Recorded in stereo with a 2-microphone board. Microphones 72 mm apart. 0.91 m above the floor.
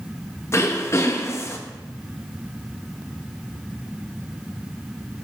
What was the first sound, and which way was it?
Throat clearing, 40° left (ahead or behind).